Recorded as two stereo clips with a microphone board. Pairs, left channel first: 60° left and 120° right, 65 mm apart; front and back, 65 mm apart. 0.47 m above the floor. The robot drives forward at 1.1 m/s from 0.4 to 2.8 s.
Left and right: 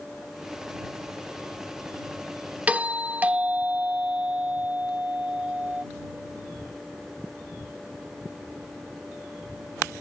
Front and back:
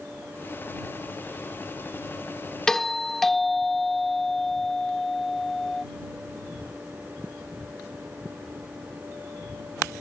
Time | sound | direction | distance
2.7 | a doorbell | 75° right | ?